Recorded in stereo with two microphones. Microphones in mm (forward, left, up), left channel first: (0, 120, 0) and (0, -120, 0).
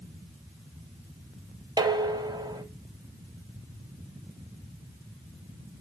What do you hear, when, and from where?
1.8 s dishes clattering: 15° right (ahead or behind), 0.6 m